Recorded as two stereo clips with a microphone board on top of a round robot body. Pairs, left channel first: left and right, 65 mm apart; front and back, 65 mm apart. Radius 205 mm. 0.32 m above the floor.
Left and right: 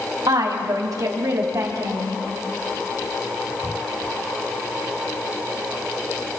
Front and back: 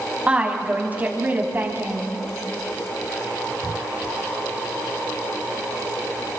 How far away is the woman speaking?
About 3.5 m.